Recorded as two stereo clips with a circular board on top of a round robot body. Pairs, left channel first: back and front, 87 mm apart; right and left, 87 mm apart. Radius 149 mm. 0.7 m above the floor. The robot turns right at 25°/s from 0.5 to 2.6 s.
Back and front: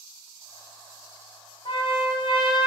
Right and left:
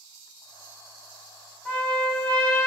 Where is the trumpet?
165° right, 1.8 m; by 2.7 s 145° right, 1.8 m.